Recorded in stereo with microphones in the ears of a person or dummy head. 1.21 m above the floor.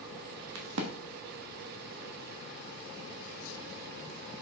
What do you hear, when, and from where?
0.6 s a crack: 70° right (ahead or behind), 1.4 m